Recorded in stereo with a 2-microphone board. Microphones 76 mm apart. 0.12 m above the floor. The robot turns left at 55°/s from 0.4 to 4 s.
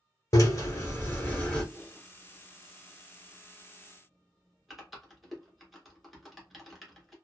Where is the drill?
75° left, 1.2 m; by 1.6 s 10° left, 1.2 m.